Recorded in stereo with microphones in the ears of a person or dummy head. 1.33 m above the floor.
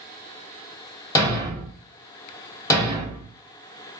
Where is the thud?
20° left (ahead or behind), 1.8 m.